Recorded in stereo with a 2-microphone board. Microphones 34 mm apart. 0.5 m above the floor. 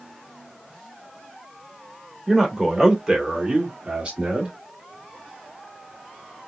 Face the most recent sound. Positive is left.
turn(degrees=-35)  # may be behind; listen again after turning